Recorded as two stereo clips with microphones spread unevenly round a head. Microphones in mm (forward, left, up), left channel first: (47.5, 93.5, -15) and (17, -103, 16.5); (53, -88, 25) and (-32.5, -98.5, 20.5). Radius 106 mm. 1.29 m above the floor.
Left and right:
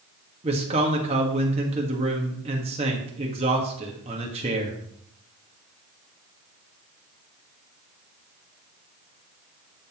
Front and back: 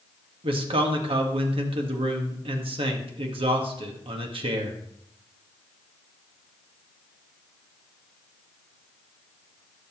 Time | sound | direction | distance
0.4 | a man speaking | 160° right | 1.5 m